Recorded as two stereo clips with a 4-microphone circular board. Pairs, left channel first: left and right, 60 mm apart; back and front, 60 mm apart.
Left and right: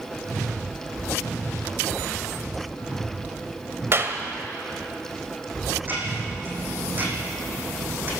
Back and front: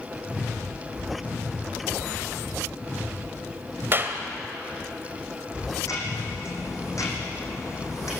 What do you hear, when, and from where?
3.9 s a clap: 50° right, 2.5 m
5.8 s ticking: 150° right, 6 m